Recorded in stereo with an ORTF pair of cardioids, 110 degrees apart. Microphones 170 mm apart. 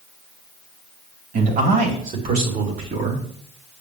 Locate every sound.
1.3 s a man speaking: 50° right, 4 m; by 3.2 s 55° right, 3 m